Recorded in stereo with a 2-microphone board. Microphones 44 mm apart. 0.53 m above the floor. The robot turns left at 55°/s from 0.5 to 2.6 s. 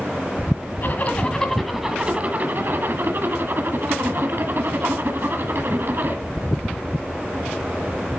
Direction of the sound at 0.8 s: 40° left.